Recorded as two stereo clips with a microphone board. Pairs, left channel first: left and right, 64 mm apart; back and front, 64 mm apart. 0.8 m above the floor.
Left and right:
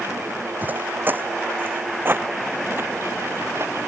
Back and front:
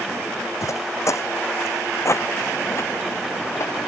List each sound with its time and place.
0.6 s footsteps: 150° right; by 3.7 s 140° right